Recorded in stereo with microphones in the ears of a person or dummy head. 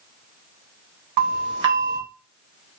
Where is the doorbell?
60° right (ahead or behind), 3.5 m.